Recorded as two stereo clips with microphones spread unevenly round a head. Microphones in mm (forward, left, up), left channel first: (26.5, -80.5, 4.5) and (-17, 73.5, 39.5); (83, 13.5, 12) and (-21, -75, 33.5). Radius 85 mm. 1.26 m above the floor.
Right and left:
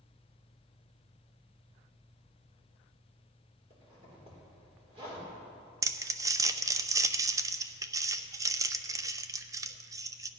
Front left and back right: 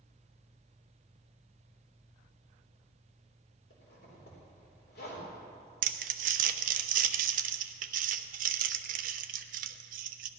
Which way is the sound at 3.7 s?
50° left.